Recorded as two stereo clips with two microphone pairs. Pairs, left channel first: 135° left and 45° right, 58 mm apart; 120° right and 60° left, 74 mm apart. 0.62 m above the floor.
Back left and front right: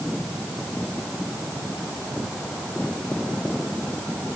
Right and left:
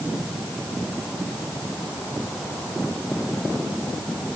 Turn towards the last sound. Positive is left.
No sound to turn to.